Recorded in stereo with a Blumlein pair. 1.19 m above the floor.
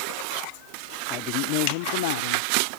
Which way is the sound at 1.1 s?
35° left.